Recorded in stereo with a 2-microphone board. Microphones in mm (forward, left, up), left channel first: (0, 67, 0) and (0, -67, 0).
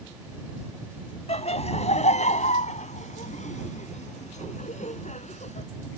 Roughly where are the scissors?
I don't hear scissors.